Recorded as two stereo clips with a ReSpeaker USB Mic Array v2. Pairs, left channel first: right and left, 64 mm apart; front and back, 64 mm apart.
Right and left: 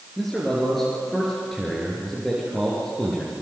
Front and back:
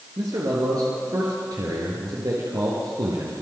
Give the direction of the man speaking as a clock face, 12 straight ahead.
6 o'clock.